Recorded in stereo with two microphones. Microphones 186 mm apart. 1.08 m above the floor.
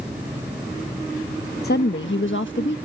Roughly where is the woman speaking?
Left.